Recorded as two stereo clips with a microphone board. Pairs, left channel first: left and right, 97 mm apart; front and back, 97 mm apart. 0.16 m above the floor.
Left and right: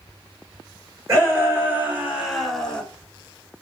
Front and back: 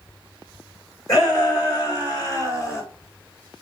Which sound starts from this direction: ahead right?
A shout, at 1.1 s.